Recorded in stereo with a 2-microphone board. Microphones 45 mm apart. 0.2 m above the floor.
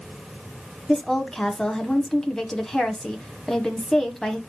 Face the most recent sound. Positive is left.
turn(degrees=15)  # may be behind; listen again after turning